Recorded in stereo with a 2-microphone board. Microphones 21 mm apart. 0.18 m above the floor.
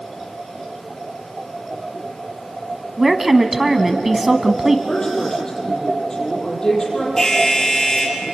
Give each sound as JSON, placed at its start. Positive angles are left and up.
{"t": 3.0, "sound": "a woman speaking", "side_deg": -15, "distance_m": 1.2}
{"t": 4.9, "sound": "a woman speaking", "side_deg": 35, "distance_m": 7.0}
{"t": 7.2, "sound": "an alarm", "side_deg": 30, "distance_m": 5.0}